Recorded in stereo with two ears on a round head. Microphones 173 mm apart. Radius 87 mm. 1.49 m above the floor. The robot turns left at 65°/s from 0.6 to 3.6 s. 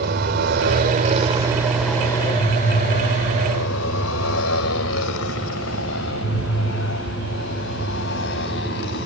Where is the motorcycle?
55° right (ahead or behind); by 9.1 s 60° left (ahead or behind).